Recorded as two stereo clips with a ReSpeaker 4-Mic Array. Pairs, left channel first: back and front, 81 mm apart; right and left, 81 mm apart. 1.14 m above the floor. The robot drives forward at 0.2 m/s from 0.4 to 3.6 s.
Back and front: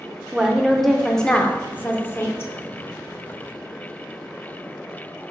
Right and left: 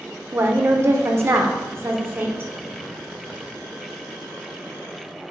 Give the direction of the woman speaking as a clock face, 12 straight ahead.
9 o'clock.